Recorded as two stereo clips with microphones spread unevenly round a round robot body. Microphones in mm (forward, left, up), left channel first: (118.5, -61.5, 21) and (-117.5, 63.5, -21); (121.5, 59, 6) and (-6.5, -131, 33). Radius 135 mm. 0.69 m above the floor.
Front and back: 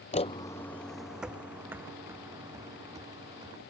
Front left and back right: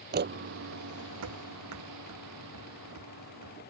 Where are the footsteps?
85° right; by 3.6 s 130° right.